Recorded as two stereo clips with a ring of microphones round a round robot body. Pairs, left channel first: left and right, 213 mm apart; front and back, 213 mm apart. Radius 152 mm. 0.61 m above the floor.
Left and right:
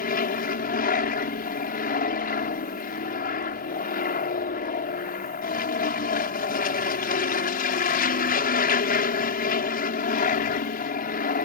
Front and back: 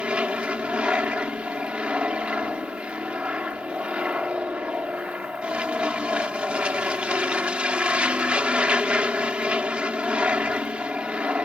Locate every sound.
0.0 s an aircraft: 100° left